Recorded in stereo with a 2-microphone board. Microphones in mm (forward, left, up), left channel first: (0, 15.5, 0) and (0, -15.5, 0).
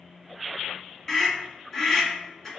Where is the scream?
15° left (ahead or behind), 1.6 m.